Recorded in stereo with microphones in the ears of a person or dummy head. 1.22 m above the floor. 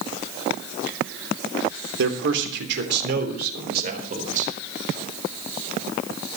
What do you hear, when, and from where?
2.0 s a man speaking: 80° right, 3 m; by 4.5 s 45° right (ahead or behind), 4 m